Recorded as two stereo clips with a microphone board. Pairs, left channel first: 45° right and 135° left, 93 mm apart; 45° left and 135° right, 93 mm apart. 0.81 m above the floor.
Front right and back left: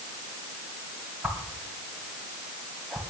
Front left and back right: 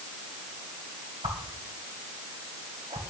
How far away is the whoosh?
About 2.5 m.